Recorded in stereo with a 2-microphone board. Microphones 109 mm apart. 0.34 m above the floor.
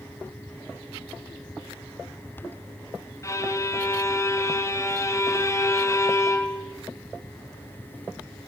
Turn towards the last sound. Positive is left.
turn(degrees=30)  # may be behind; listen again after turning